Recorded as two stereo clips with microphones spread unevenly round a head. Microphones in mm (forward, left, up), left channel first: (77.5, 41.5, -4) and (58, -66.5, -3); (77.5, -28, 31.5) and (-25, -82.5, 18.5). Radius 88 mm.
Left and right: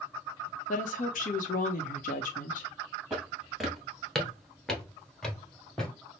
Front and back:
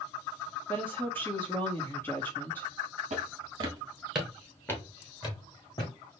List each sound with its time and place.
0.7 s a woman speaking: 105° left, 0.7 m
3.1 s footsteps: 175° left, 1.7 m; by 5.9 s 5° right, 2.5 m